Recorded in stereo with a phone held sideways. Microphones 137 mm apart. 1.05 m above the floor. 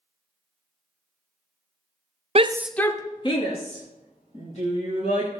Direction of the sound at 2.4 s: 50° right (ahead or behind).